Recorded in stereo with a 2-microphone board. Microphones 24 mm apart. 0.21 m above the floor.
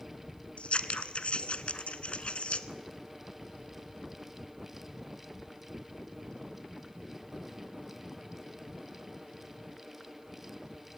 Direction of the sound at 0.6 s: 60° left (ahead or behind).